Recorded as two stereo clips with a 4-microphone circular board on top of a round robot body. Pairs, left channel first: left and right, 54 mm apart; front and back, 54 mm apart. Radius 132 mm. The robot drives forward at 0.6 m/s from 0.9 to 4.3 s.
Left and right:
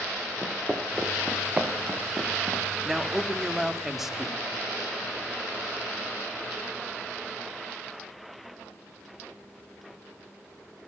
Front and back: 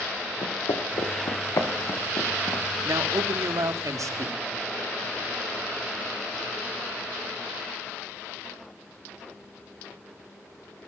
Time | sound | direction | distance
0.4 | footsteps | straight ahead | 3.5 m
2.9 | a man speaking | 170° right | 1.5 m